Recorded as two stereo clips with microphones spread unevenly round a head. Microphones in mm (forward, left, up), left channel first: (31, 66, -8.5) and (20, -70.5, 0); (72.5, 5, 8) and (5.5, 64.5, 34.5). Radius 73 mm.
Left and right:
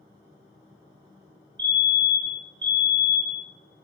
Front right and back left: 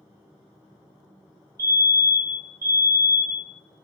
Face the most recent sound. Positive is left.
turn(degrees=-150)